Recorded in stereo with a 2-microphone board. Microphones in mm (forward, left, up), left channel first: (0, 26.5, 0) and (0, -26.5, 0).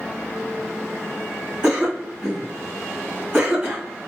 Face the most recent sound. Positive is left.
turn(degrees=-20)  # may be behind; listen again after turning